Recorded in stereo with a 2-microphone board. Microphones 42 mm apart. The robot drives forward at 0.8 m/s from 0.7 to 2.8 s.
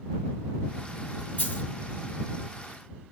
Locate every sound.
1.4 s a dropped coin: 35° left (ahead or behind), 1.7 m